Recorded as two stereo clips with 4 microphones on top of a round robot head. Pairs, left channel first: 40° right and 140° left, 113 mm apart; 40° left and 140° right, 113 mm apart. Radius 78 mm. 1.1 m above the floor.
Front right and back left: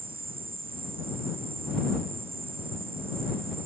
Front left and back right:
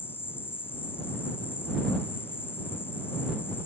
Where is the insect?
110° left.